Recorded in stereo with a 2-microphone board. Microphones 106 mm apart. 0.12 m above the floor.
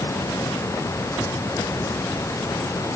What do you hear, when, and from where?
Only background noise.